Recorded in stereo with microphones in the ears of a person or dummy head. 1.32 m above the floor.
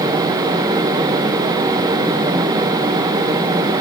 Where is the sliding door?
I don't hear a sliding door.